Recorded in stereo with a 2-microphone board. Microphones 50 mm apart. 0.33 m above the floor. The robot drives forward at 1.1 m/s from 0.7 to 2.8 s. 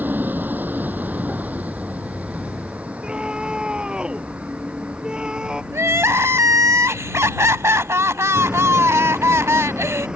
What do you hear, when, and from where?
0.0 s a vehicle: 40° right (ahead or behind); by 10.2 s 20° right (ahead or behind)
3.0 s a scream: 15° right (ahead or behind)
5.7 s crying: 70° right (ahead or behind)